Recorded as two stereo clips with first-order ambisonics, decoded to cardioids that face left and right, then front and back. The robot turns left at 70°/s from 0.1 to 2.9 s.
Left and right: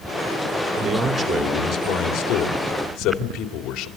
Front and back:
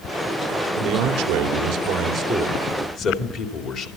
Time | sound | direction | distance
0.8 | a man speaking | 155° right | 2.5 m